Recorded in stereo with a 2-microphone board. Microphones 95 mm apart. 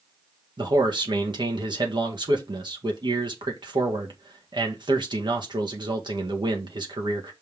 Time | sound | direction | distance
0.6 | a man speaking | 55° right (ahead or behind) | 1.6 m